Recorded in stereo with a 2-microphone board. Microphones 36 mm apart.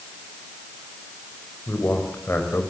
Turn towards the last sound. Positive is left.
turn(degrees=85)